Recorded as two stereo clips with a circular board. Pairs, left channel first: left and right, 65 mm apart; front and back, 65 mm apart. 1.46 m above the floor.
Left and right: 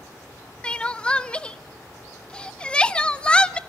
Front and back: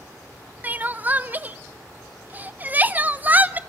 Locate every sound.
0.6 s crying: 150° left, 0.8 m